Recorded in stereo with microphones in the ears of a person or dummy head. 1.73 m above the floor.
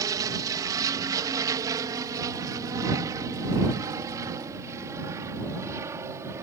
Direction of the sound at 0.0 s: 20° right (ahead or behind).